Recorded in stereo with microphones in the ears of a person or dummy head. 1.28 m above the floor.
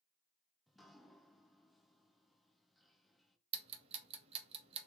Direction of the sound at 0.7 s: Centre (ahead or behind).